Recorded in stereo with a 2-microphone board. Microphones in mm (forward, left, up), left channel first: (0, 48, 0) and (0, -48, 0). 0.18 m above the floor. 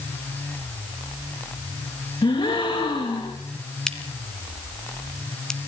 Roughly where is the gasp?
Left.